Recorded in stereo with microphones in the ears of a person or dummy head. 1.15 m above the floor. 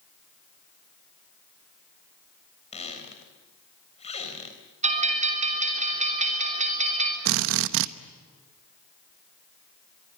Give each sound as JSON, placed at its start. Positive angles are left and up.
{"t": 2.7, "sound": "a squeak", "side_deg": 35, "distance_m": 3.5}
{"t": 4.8, "sound": "a bell", "side_deg": -30, "distance_m": 3.0}
{"t": 7.2, "sound": "a drill", "side_deg": -65, "distance_m": 0.8}